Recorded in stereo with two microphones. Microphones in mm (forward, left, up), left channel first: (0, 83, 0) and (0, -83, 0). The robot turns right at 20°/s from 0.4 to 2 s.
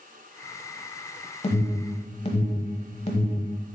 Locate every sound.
1.4 s an alarm: 35° left (ahead or behind), 1.0 m; by 3.5 s 40° left (ahead or behind), 1.0 m